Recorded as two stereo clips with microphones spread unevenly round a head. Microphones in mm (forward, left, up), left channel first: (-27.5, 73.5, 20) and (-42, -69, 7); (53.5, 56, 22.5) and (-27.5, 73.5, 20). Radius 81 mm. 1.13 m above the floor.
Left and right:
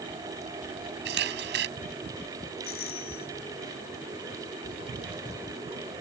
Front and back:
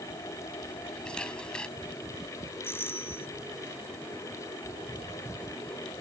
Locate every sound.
1.1 s a camera shutter: 95° right
2.6 s a doorbell: 50° left